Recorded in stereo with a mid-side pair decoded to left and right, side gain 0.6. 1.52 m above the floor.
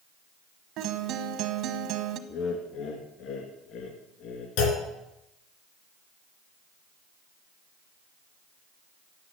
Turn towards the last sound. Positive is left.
turn(degrees=70)